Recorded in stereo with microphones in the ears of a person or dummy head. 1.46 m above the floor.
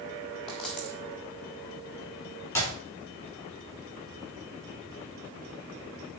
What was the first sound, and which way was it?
A dropped coin, centre (ahead or behind).